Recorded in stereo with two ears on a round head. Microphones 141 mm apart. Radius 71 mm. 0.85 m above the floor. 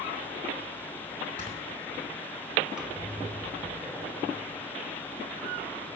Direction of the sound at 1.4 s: 45° left (ahead or behind).